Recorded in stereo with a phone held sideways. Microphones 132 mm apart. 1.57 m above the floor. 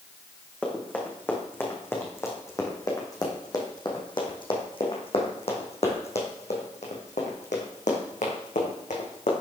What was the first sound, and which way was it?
Running footsteps, 10° left (ahead or behind).